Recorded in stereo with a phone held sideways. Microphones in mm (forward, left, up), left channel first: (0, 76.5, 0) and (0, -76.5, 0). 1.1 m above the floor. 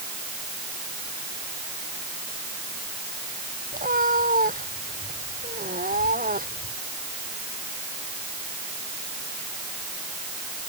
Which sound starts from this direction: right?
A cat meowing, at 3.7 s.